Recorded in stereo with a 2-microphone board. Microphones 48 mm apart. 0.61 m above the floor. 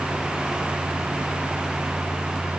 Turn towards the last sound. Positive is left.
No sound to turn to.